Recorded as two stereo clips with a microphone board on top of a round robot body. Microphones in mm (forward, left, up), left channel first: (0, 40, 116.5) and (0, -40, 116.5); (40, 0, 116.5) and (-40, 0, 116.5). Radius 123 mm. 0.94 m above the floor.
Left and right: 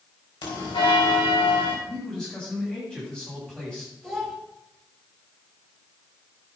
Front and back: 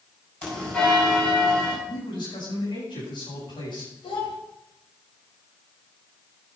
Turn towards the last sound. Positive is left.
turn(degrees=5)